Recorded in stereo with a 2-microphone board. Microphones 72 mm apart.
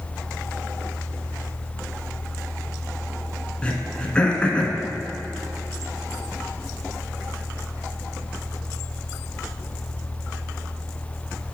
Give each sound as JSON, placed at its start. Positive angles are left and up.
{"t": 3.6, "sound": "throat clearing", "side_deg": 15, "distance_m": 1.4}